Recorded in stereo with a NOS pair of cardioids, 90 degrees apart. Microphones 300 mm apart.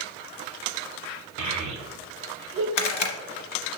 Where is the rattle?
60° left, 0.9 m.